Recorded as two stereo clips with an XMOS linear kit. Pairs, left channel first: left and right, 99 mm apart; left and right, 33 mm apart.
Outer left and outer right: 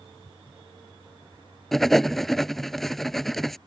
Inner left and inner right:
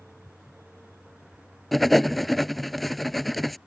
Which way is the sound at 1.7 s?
Centre (ahead or behind).